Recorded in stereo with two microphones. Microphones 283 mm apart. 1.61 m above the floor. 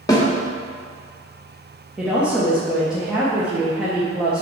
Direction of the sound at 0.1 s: 15° left (ahead or behind).